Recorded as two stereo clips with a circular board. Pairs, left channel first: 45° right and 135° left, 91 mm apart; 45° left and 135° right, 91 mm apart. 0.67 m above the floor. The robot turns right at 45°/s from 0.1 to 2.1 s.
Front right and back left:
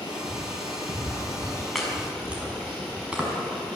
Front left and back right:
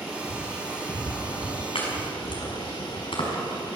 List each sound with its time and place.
0.0 s running water: 45° right, 10 m; by 3.8 s 45° left, 10 m
1.8 s chopping: 40° left, 5.5 m; by 3.8 s 55° left, 5.5 m